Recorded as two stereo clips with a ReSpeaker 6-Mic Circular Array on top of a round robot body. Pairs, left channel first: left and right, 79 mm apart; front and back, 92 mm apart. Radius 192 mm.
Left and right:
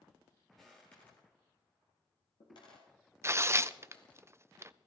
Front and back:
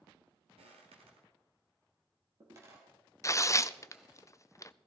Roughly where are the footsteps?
Behind.